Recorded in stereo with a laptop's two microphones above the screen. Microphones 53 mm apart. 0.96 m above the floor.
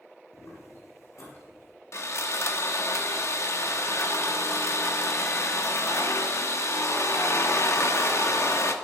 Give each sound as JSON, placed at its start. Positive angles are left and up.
{"t": 0.3, "sound": "footsteps", "side_deg": 65, "distance_m": 3.0}
{"t": 1.9, "sound": "sawing", "side_deg": 60, "distance_m": 1.0}